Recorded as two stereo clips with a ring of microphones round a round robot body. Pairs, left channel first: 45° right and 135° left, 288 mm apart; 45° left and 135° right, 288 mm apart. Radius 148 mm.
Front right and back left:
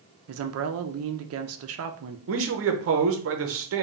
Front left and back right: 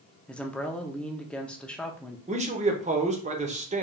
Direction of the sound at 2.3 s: 165° left.